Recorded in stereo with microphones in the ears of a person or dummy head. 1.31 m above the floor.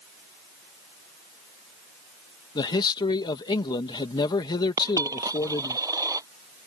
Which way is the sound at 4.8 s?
20° right (ahead or behind).